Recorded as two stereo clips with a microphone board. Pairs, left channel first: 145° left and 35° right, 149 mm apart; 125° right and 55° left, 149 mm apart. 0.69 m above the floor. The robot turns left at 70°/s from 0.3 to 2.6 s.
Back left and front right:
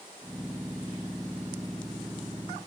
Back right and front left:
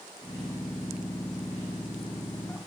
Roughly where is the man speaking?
I don't hear a man speaking.